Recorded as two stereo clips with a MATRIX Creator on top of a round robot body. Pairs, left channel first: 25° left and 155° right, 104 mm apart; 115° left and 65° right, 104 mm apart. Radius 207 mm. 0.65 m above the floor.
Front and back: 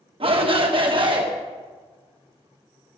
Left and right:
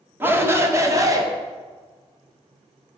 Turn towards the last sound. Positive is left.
turn(degrees=-120)